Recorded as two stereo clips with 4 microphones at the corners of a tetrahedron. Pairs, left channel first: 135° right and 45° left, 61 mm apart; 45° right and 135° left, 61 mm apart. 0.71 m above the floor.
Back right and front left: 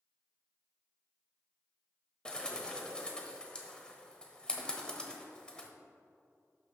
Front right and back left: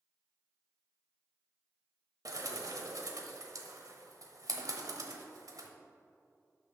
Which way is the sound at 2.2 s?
150° left.